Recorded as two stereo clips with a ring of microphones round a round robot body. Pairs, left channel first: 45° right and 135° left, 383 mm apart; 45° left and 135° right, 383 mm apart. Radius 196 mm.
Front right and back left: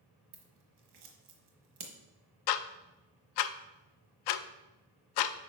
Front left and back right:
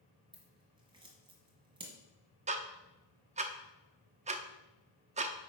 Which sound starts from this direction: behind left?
Scissors, at 0.3 s.